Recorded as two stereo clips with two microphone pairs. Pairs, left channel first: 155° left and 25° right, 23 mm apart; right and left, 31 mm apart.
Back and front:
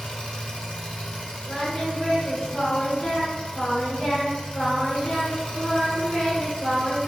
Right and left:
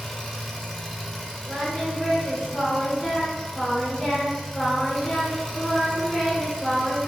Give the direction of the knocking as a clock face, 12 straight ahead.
No knocking in this recording.